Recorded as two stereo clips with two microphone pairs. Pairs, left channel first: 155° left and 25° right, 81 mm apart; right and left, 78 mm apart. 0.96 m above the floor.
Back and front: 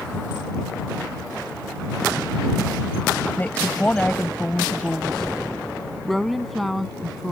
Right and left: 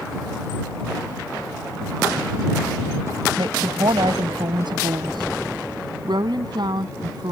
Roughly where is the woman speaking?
Left.